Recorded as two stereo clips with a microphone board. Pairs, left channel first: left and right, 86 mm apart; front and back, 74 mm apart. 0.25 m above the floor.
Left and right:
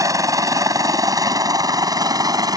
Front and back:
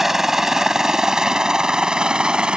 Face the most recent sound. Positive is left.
turn(degrees=-105)